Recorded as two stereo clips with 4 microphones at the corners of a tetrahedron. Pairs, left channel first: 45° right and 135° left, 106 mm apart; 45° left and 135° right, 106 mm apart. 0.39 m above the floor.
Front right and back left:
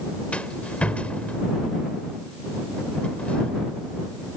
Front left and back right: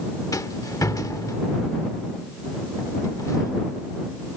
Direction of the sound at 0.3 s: 25° left.